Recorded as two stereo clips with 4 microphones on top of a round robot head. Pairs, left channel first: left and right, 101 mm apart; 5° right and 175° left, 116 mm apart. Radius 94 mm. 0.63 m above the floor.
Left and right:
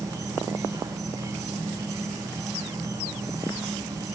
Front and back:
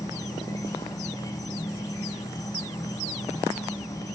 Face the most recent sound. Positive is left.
turn(degrees=-50)